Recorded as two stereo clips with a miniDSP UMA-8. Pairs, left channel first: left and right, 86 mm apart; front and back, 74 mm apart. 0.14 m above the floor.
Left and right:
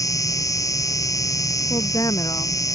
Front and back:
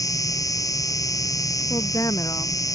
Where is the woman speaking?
45° left.